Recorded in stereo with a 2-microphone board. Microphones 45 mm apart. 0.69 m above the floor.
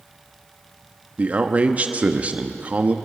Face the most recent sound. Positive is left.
turn(degrees=-30)  # may be behind; listen again after turning